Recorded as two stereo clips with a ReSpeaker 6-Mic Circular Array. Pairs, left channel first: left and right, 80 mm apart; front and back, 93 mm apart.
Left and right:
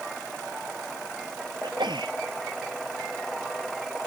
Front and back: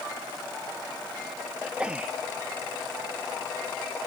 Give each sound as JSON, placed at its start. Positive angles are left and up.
{"t": 1.6, "sound": "a sneeze", "azimuth_deg": -100}